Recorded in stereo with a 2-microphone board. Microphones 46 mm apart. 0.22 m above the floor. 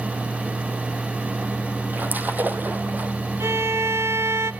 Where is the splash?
40° right (ahead or behind), 2 m.